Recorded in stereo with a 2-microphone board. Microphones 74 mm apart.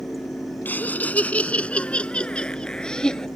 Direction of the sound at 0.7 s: 25° left (ahead or behind).